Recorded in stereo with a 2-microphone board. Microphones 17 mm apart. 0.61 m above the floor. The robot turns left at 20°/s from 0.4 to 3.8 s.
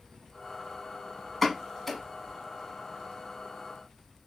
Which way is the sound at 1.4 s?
5° left (ahead or behind).